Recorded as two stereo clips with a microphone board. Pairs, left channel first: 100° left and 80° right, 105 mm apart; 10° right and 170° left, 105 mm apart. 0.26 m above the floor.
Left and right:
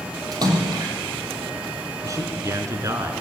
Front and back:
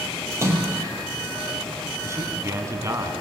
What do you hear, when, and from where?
0.3 s a splash: 125° right, 6 m
2.0 s a man speaking: 135° right, 3.5 m